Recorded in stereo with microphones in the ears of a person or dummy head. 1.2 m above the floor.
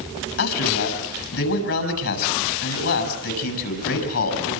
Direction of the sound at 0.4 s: 75° left (ahead or behind).